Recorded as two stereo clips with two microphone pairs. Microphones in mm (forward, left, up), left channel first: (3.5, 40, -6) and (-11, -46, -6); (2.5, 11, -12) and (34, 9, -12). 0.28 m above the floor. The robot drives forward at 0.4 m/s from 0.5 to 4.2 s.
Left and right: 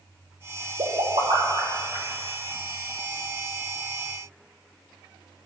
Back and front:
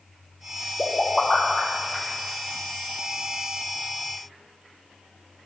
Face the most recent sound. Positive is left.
turn(degrees=-135)